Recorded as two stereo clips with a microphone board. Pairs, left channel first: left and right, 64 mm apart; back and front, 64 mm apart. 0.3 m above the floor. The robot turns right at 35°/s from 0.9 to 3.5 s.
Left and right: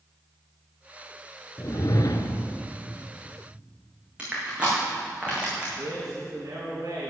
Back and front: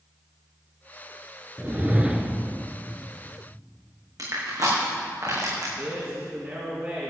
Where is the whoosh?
60° left, 0.8 m; by 2.6 s 95° left, 0.8 m.